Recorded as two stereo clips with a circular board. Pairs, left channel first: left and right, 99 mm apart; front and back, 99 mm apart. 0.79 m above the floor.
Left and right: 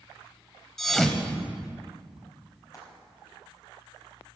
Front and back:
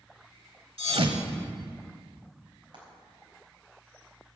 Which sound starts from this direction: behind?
A thud, at 0.8 s.